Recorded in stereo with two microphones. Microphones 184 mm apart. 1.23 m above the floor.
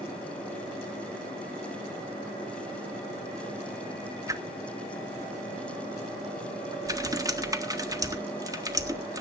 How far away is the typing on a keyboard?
About 1.4 m.